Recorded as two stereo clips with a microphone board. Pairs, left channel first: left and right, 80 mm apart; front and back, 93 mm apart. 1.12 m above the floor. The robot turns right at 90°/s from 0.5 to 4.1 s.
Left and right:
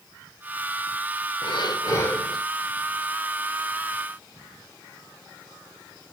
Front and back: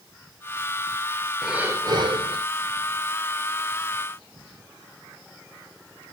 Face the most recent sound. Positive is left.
turn(degrees=-25)